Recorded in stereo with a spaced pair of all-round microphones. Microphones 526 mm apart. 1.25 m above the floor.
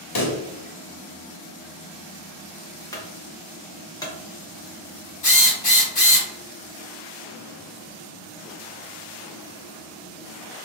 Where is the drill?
80° left, 1.0 m.